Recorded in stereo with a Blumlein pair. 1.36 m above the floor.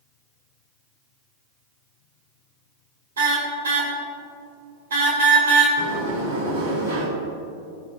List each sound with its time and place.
3.2 s a car horn: 65° right, 3.5 m
5.8 s a sliding door: 65° right, 5.5 m